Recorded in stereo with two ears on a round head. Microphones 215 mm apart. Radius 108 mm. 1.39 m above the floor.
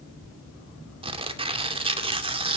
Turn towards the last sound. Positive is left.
turn(degrees=-25)  # may be behind; listen again after turning